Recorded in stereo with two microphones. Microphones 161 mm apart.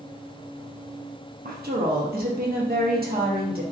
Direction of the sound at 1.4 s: 70° right (ahead or behind).